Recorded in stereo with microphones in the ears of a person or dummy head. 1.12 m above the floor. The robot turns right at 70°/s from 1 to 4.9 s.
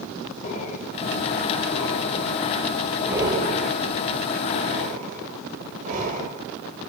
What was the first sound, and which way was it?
Breathing, 40° left (ahead or behind).